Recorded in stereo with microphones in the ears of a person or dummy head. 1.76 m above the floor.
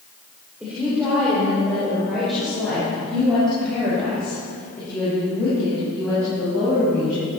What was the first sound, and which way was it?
A woman speaking, 5° right (ahead or behind).